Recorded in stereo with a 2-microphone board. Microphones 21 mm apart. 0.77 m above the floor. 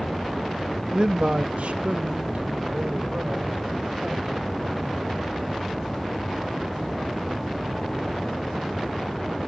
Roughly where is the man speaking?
Right.